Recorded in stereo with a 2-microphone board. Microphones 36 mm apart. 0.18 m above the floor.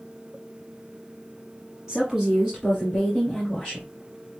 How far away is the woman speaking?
About 1.3 m.